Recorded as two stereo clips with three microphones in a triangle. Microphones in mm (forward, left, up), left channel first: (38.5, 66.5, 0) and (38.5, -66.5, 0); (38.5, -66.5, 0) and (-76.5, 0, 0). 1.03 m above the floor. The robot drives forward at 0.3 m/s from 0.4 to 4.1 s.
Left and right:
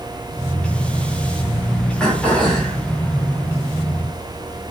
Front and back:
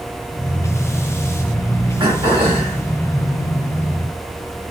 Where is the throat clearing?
170° left, 1.0 m.